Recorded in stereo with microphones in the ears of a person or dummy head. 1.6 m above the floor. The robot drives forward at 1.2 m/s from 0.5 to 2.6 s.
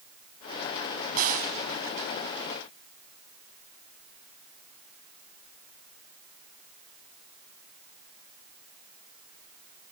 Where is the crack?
45° right (ahead or behind), 3 m; by 1.5 s 50° right (ahead or behind), 3 m.